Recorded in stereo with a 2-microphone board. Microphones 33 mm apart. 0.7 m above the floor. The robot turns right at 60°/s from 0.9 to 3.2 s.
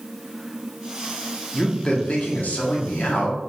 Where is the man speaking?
10° left, 1.1 m; by 3.4 s 110° left, 1.1 m.